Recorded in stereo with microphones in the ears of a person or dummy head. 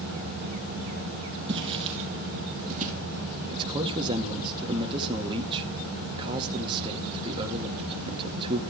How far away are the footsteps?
About 3 m.